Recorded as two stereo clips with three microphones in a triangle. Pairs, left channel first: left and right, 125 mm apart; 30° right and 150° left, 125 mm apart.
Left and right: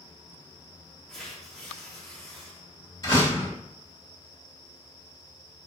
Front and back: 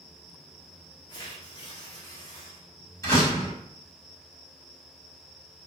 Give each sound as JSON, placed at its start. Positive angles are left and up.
{"t": 1.1, "sound": "tearing paper", "azimuth_deg": 5, "distance_m": 1.1}
{"t": 3.0, "sound": "a door slam", "azimuth_deg": 35, "distance_m": 1.8}